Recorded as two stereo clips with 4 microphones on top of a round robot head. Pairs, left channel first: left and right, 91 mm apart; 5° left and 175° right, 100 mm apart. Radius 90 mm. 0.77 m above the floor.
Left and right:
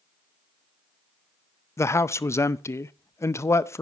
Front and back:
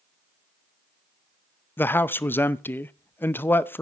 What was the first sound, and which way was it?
A man speaking, 60° left.